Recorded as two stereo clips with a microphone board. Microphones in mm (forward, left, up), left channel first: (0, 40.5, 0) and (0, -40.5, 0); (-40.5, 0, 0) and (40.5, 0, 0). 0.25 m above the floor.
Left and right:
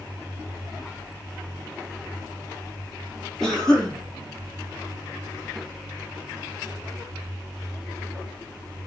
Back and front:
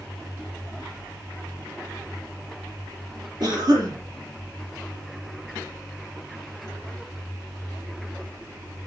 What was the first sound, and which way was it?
A cough, 5° left.